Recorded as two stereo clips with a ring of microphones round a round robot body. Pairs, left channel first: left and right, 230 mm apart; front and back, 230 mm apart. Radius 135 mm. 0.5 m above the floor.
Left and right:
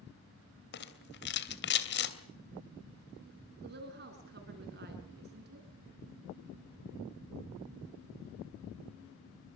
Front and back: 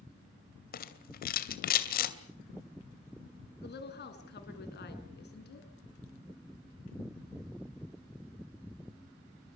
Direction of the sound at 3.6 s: 40° right.